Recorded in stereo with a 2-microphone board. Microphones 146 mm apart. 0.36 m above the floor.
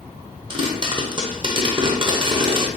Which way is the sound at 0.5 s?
35° right (ahead or behind).